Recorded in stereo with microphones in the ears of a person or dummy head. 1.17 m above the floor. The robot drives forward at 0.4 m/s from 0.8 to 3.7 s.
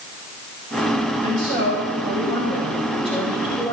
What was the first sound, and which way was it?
A woman speaking, 25° left (ahead or behind).